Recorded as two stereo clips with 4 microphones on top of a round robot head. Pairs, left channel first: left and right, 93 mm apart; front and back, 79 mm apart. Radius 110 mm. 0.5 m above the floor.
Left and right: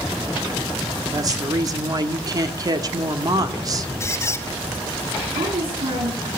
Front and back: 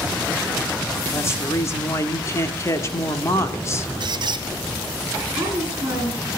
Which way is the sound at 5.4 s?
110° right.